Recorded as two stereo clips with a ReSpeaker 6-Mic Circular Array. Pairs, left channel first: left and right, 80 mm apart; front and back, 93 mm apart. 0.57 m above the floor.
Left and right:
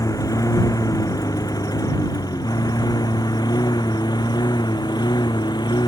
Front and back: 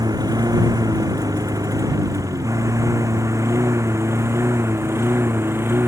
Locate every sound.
0.0 s a lawn mower: 130° left; by 5.9 s 115° left